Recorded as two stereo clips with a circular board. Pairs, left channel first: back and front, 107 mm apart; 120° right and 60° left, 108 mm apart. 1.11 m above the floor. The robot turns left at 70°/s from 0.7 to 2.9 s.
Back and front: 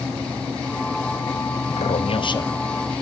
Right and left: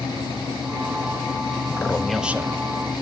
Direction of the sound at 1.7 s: Straight behind.